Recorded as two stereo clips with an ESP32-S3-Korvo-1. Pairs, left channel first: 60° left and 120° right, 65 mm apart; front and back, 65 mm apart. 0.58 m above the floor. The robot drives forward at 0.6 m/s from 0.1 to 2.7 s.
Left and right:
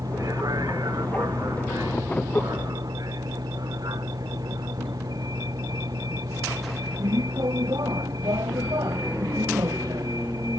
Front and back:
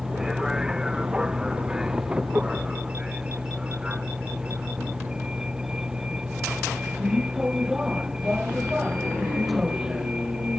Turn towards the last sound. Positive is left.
turn(degrees=-100)